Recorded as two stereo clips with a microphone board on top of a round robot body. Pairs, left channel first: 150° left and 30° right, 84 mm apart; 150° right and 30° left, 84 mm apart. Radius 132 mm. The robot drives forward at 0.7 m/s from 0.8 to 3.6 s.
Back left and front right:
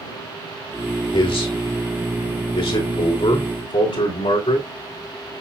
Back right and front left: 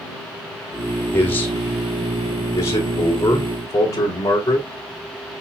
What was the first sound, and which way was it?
A man speaking, 145° left.